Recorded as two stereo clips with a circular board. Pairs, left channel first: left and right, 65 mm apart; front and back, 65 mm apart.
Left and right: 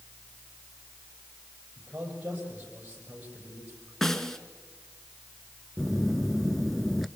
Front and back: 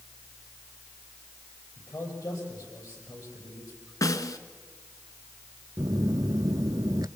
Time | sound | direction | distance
1.8 | a man speaking | 25° right | 7.5 m
4.0 | a snare drum | 5° left | 1.2 m
5.8 | a phone buzzing | straight behind | 0.5 m